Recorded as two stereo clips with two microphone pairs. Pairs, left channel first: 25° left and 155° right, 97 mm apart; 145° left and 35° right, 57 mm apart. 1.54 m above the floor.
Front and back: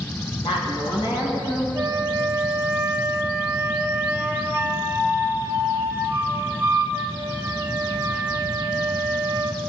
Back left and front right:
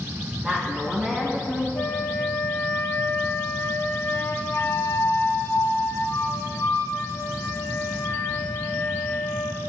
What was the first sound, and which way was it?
A woman speaking, 35° left.